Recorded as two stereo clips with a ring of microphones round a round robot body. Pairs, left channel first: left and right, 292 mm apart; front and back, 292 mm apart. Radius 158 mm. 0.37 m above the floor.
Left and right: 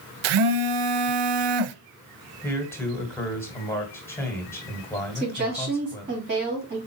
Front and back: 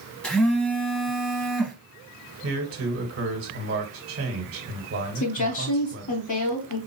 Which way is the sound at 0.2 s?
85° right.